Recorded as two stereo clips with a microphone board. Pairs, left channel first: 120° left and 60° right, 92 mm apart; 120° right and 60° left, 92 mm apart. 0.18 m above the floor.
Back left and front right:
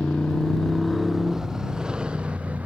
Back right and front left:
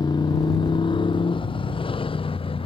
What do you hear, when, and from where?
0.0 s a motorcycle: 155° right; by 2.6 s 135° right